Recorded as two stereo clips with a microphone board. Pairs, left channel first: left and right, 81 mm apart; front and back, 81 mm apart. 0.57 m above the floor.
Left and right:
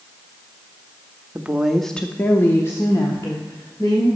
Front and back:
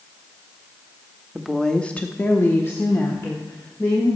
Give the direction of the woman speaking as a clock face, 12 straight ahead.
3 o'clock.